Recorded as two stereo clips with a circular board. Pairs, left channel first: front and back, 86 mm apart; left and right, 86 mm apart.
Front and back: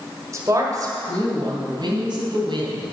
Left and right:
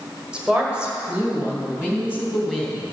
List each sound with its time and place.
0.3 s a woman speaking: 160° right, 1.5 m; by 2.9 s 170° right, 3.5 m